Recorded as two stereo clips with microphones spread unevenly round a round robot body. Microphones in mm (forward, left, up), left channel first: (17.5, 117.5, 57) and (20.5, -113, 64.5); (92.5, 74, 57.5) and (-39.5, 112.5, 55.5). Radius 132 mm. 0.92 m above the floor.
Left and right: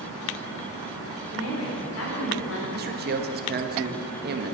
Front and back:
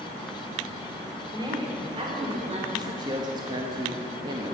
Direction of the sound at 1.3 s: 105° left.